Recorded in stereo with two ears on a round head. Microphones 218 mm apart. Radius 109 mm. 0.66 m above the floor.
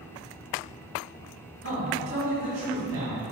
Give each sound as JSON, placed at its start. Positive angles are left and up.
{"t": 1.6, "sound": "a man speaking", "side_deg": -55, "distance_m": 1.1}